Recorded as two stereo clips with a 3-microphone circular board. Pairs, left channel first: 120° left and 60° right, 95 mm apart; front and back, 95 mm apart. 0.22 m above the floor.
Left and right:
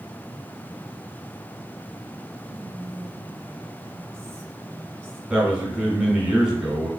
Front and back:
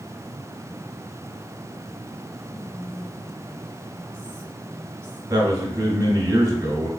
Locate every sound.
2.5 s whispering: 60° right, 1.3 m
5.3 s a man speaking: 140° right, 1.5 m